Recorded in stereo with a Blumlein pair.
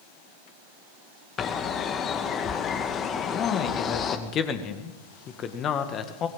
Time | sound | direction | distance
1.4 | a bird | 25° left | 2 m
3.2 | a man speaking | 25° left | 1.9 m